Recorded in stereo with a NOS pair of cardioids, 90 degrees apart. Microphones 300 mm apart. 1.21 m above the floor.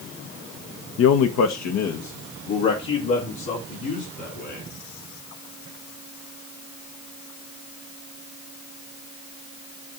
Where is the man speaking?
50° left, 0.6 m; by 4.7 s 80° left, 4 m.